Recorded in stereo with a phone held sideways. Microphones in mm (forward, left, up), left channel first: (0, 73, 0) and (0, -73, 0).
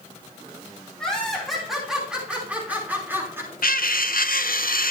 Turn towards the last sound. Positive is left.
turn(degrees=80)